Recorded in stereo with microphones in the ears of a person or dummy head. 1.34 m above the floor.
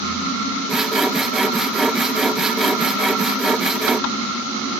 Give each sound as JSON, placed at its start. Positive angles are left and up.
{"t": 0.7, "sound": "sawing", "side_deg": -5}